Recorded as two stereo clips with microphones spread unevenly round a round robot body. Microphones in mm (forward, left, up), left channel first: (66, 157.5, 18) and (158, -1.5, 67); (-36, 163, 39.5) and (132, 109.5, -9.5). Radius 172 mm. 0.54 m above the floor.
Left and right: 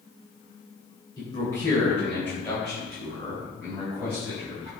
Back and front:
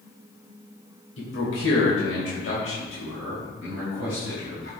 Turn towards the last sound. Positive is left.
turn(degrees=-145)